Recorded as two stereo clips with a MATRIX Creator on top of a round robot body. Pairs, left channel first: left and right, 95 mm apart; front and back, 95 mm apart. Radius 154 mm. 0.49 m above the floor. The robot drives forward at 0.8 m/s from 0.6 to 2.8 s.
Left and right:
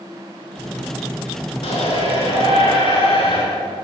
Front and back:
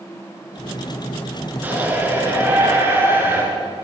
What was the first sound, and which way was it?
A shout, 110° left.